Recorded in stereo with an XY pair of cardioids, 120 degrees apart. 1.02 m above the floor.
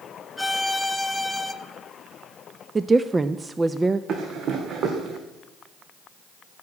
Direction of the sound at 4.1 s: 55° right.